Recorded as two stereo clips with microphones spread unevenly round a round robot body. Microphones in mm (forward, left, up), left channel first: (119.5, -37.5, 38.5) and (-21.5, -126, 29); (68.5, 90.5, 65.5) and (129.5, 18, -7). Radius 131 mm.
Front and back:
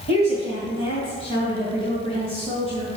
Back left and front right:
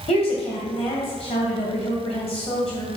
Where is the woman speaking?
90° left, 2.5 m.